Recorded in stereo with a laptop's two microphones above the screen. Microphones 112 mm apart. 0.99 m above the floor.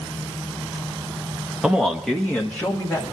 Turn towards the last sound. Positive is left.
turn(degrees=20)  # may be behind; listen again after turning